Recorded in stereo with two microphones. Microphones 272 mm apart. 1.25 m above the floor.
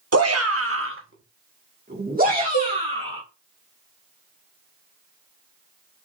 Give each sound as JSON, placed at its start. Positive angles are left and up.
{"t": 0.1, "sound": "a shout", "side_deg": -60, "distance_m": 1.0}
{"t": 2.5, "sound": "a cowbell", "side_deg": 55, "distance_m": 1.4}